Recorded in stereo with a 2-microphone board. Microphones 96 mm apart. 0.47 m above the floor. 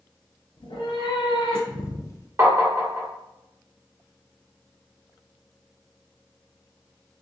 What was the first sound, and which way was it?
A cat meowing, 60° left (ahead or behind).